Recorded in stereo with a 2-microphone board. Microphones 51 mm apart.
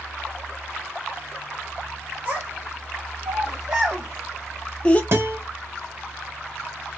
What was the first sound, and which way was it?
A child speaking, 45° right (ahead or behind).